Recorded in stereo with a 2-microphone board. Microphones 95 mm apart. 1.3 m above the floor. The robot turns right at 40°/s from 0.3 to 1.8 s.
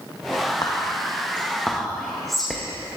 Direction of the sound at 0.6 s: 45° left (ahead or behind).